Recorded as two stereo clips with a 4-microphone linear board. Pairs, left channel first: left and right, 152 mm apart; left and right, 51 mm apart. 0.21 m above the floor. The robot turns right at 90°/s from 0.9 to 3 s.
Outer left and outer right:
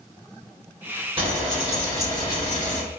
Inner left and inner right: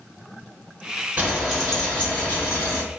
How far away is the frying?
About 1.8 m.